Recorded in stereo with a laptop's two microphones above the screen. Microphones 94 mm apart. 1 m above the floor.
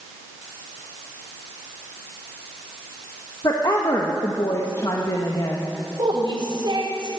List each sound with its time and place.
3.4 s a woman speaking: 45° left (ahead or behind), 1.3 m
6.0 s a woman speaking: 55° right (ahead or behind), 3 m